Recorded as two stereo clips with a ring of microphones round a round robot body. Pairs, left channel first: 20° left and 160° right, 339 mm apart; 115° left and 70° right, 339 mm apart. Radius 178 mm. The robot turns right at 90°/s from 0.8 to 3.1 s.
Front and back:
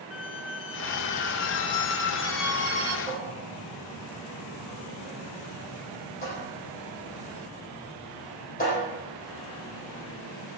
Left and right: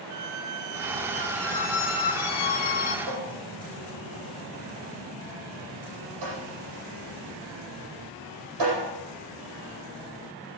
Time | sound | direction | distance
0.1 | a squeak | 30° right | 1.1 m
3.1 | a cupboard door | 45° right | 8.5 m